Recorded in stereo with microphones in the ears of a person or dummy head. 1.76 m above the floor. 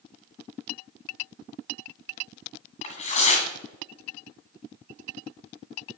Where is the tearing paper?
40° left (ahead or behind), 1.6 m.